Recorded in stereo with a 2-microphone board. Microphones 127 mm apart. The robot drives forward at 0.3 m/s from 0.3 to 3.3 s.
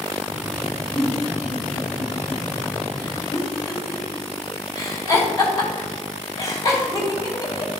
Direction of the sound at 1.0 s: 35° left (ahead or behind).